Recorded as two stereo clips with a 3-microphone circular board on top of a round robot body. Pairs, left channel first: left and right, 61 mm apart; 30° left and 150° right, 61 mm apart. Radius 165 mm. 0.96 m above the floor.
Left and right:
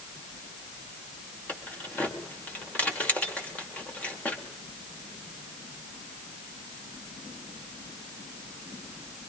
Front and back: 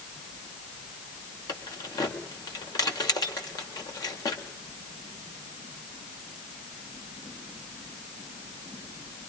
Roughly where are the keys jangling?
Ahead left.